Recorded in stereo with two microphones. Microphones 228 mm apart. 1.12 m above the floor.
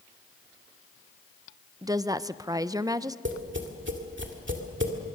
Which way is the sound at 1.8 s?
15° right (ahead or behind).